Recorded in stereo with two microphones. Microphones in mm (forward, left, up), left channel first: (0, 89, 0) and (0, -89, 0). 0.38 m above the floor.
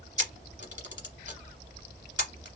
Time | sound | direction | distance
0.2 | a camera shutter | 75° left (ahead or behind) | 1.0 m